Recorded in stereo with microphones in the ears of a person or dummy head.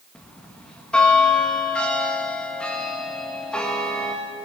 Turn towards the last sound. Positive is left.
turn(degrees=10)  # may be behind; listen again after turning